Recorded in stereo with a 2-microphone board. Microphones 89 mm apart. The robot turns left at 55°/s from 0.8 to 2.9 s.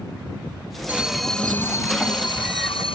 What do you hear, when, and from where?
0.9 s an alarm: 165° right; by 3.0 s 85° left